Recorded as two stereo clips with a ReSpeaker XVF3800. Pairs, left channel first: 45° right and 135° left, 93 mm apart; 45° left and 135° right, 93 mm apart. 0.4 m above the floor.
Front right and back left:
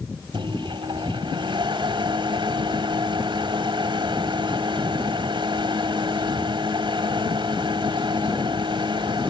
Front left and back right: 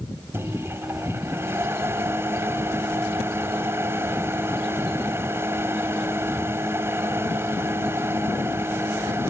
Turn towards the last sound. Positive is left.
turn(degrees=165)